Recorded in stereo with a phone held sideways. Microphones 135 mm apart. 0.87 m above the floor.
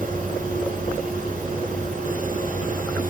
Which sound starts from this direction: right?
A fan, at 0.0 s.